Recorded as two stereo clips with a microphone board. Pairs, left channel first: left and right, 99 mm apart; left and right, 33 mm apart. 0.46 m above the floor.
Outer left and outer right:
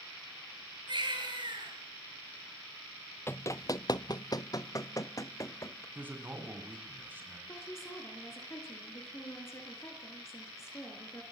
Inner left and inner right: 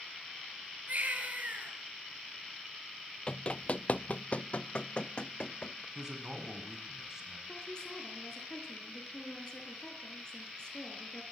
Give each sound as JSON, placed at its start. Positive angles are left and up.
{"t": 0.9, "sound": "a baby crying", "side_deg": -50, "distance_m": 6.0}
{"t": 3.3, "sound": "running footsteps", "side_deg": 25, "distance_m": 0.5}
{"t": 6.0, "sound": "a man speaking", "side_deg": -20, "distance_m": 5.0}
{"t": 7.5, "sound": "a woman speaking", "side_deg": 25, "distance_m": 5.5}